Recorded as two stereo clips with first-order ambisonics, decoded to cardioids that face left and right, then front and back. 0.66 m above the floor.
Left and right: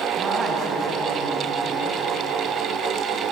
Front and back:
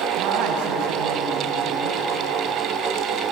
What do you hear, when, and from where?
0.2 s a man speaking: 160° right, 4 m